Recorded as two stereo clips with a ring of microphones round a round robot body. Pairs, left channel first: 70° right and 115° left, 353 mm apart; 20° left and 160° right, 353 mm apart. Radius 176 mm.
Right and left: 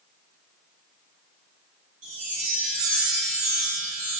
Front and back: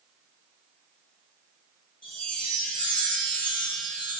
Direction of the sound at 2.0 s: 110° left.